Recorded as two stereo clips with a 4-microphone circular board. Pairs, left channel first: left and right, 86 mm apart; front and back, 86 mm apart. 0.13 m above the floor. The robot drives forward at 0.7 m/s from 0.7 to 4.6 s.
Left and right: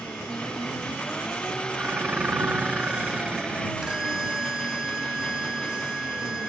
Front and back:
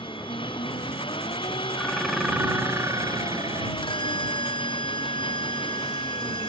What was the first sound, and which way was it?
An engine running, 10° left.